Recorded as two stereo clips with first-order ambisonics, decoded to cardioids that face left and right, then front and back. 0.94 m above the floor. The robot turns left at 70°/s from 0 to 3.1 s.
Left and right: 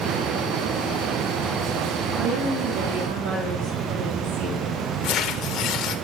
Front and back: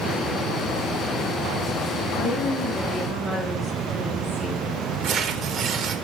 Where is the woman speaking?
35° right, 2.5 m; by 4.7 s 105° right, 2.5 m.